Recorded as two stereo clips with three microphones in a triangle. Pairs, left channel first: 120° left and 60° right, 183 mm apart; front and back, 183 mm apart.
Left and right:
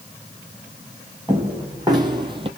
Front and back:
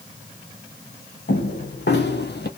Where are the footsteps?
10° left, 1.5 m; by 2.5 s straight ahead, 0.7 m.